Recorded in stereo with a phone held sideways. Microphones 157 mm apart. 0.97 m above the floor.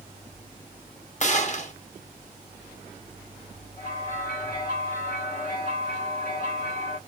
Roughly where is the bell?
Left.